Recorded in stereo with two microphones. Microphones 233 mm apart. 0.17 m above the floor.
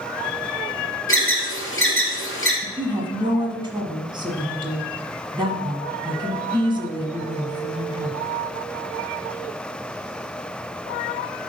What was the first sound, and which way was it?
An alarm, 60° left (ahead or behind).